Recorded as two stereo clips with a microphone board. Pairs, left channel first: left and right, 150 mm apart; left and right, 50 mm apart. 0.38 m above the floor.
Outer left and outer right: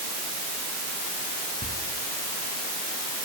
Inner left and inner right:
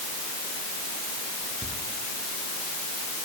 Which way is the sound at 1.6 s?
80° left.